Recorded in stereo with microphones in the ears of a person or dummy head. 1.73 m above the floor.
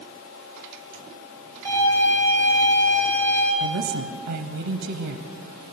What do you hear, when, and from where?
1.6 s a violin: 10° left (ahead or behind), 4 m
3.6 s a woman speaking: 60° right (ahead or behind), 0.7 m